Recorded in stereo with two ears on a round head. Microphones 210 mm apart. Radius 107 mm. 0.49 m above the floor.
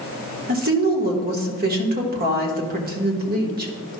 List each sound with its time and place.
0.5 s a woman speaking: 40° right (ahead or behind), 1.3 m